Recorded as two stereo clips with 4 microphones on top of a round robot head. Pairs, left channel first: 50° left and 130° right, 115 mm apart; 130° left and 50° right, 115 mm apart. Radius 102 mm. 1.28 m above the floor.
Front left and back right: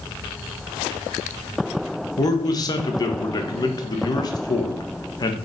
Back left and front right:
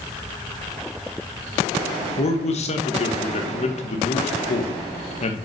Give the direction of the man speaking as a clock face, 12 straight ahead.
9 o'clock.